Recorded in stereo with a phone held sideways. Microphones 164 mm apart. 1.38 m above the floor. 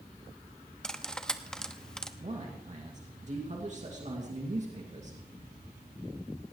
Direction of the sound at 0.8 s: 5° left (ahead or behind).